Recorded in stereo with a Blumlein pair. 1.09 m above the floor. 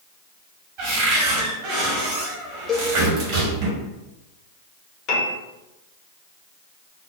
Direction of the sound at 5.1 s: 35° left.